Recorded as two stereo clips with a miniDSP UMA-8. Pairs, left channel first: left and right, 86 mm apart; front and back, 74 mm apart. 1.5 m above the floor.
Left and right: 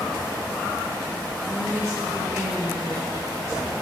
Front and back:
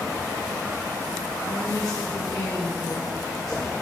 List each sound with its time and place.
1.5 s a woman speaking: 35° right, 1.1 m